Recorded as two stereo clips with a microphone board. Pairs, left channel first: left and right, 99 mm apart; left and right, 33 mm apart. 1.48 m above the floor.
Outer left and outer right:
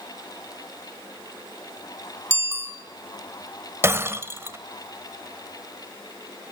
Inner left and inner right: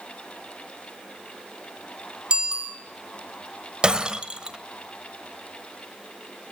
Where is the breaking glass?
25° right (ahead or behind), 1.3 m.